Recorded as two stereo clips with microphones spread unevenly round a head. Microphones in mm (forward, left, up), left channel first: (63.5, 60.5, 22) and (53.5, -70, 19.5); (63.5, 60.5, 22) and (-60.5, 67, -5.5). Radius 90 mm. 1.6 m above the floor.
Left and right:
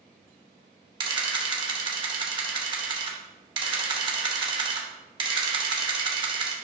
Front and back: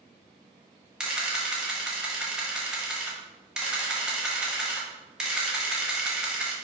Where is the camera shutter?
80° right, 1.0 m.